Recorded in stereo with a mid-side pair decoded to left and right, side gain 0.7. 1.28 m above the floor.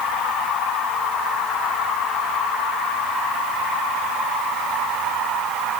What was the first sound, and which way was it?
Only background noise.